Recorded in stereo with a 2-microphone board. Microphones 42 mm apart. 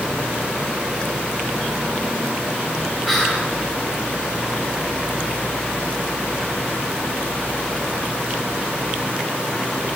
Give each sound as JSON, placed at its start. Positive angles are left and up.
{"t": 3.0, "sound": "whispering", "side_deg": -5, "distance_m": 1.6}